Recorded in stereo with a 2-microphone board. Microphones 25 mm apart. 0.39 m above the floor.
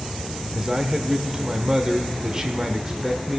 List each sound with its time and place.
0.5 s a man speaking: 30° right (ahead or behind), 0.9 m